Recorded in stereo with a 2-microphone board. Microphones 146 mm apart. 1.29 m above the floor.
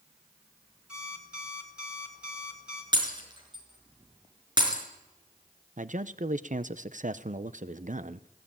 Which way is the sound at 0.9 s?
5° right (ahead or behind).